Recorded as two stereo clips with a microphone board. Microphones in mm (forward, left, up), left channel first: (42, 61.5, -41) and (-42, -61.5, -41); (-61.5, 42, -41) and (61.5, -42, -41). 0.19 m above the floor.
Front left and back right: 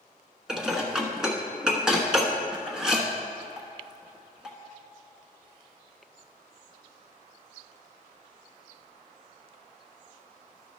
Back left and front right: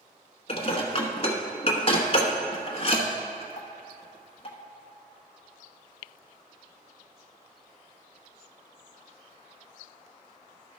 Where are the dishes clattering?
150° left, 1.1 m.